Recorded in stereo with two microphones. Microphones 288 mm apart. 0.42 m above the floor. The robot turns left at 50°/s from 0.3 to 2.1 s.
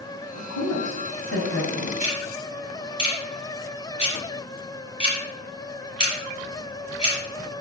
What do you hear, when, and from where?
0.3 s a woman speaking: 65° left (ahead or behind), 2.5 m; by 1.9 s 25° left (ahead or behind), 2.5 m
2.0 s ticking: 30° left (ahead or behind), 4.5 m; by 7.2 s 25° left (ahead or behind), 4.5 m